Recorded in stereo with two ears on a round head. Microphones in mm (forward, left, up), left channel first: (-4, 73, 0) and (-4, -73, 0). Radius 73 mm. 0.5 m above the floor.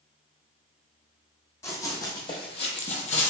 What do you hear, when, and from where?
1.6 s running footsteps: 20° left (ahead or behind), 1.0 m; by 3.3 s 45° left (ahead or behind), 0.6 m